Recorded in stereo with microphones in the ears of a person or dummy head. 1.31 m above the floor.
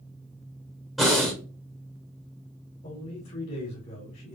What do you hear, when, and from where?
1.0 s breathing: centre (ahead or behind), 1.5 m
2.8 s a man speaking: 40° left (ahead or behind), 2.0 m